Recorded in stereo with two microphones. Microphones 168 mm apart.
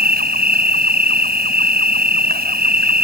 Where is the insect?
70° right (ahead or behind).